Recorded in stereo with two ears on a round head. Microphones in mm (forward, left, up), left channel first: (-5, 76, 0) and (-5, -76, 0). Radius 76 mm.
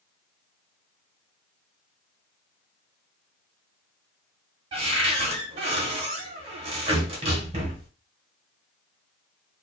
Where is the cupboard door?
35° right (ahead or behind), 1.0 m.